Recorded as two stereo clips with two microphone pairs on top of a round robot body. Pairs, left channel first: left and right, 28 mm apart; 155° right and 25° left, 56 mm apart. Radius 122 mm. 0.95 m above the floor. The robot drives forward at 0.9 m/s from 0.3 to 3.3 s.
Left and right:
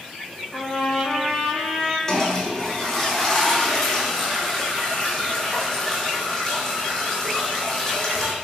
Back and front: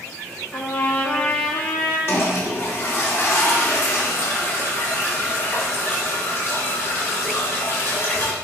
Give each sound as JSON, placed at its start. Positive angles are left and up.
{"t": 0.5, "sound": "a trumpet", "azimuth_deg": 150, "distance_m": 3.0}
{"t": 2.1, "sound": "a toilet flushing", "azimuth_deg": 160, "distance_m": 1.9}